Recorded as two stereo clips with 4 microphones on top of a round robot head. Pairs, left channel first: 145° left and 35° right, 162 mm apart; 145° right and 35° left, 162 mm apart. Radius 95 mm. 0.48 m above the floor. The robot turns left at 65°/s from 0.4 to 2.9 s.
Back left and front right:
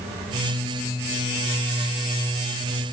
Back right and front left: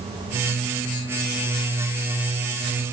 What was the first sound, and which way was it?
Only background noise.